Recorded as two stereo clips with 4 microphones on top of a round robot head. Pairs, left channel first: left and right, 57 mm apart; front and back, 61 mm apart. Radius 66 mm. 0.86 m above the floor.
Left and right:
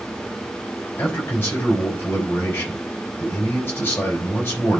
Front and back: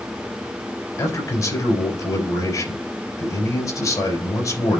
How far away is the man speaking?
About 4.5 m.